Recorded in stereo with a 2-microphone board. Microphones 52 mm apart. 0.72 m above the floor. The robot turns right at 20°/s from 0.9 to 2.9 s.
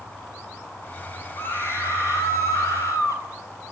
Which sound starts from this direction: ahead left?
A scream, at 1.4 s.